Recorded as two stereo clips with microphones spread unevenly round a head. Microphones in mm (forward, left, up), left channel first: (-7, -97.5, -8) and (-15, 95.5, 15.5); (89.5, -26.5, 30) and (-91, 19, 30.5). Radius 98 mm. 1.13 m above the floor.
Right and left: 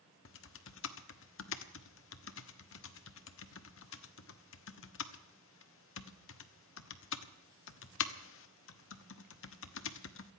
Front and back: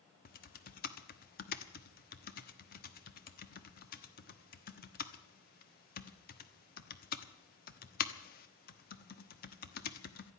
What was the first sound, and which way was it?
Typing on a keyboard, 60° right.